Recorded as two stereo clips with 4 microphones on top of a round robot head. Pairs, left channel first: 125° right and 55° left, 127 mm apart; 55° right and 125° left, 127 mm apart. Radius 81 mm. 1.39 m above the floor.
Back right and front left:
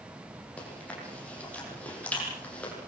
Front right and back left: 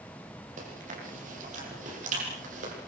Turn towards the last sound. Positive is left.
turn(degrees=155)